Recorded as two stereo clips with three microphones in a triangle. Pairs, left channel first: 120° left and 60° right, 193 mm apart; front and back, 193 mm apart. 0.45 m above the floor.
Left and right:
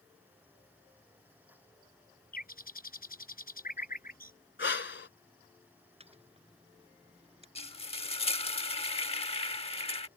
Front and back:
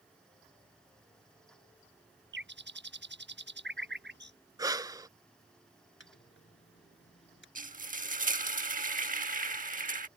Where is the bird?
160° left.